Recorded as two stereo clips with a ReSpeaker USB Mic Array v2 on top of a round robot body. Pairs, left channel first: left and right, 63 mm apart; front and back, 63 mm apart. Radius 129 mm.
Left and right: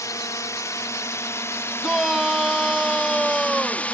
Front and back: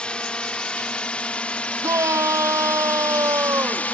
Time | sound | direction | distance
0.0 | a drone | 75° left | ?
1.8 | a shout | 175° right | ?